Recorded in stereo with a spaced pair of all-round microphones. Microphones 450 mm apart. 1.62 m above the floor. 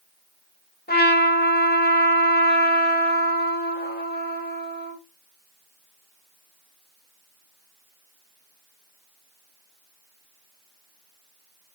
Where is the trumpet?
20° left (ahead or behind), 1.8 m.